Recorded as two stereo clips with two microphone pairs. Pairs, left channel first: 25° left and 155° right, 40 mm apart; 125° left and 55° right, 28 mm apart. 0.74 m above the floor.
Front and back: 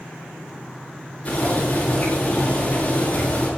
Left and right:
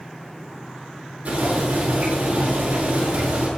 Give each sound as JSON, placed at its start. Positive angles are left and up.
{"t": 1.2, "sound": "boiling", "azimuth_deg": -30, "distance_m": 8.5}